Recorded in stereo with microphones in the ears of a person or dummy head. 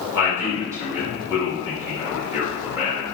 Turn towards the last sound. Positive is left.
turn(degrees=-15)  # may be behind; listen again after turning